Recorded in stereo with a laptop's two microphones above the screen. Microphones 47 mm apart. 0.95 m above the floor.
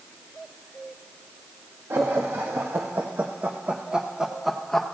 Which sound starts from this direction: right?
Laughter, at 1.9 s.